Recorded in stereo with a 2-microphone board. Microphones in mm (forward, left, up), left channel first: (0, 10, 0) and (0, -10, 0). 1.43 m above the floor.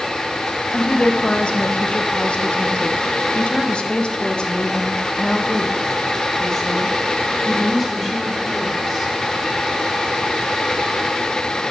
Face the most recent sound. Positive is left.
turn(degrees=15)  # may be behind; listen again after turning